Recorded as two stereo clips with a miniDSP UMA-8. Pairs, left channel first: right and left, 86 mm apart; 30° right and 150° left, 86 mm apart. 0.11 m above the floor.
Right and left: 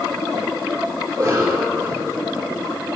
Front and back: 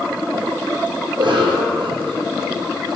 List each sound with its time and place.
1.1 s a cough: 155° left, 2.5 m